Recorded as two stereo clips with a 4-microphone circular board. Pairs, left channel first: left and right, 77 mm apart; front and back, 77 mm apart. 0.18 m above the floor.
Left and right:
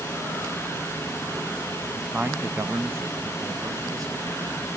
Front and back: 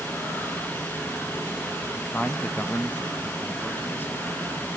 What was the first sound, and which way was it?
A man speaking, 35° right.